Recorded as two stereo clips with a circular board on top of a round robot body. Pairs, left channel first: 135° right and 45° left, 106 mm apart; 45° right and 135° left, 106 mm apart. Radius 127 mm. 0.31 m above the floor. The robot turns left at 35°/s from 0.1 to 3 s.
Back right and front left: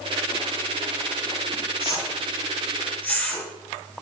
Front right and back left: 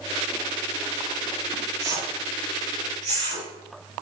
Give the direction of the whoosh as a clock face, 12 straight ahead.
6 o'clock.